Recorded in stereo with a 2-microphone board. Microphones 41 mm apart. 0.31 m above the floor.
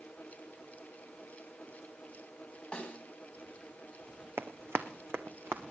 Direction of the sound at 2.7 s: 25° left (ahead or behind).